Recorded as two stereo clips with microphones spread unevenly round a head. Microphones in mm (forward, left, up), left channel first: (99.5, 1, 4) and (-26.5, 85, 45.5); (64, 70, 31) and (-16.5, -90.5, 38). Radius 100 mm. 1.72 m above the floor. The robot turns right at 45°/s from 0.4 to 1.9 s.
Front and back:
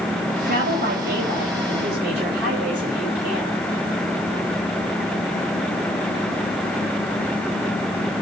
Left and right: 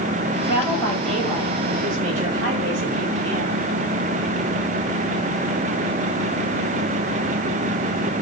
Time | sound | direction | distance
0.4 | a woman speaking | 125° left | 9 m